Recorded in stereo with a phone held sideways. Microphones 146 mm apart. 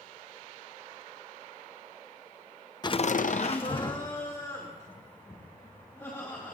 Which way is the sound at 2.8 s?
30° left (ahead or behind).